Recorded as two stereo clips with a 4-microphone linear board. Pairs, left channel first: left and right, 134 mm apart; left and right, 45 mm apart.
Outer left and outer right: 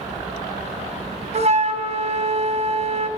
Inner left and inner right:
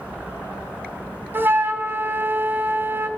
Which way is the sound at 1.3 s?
55° right (ahead or behind).